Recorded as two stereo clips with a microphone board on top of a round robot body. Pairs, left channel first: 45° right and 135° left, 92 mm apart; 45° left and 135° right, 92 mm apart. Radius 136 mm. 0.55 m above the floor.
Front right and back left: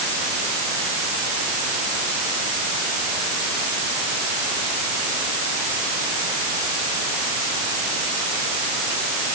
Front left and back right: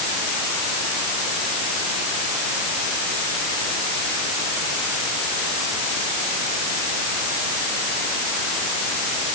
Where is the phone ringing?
No phone ringing in this recording.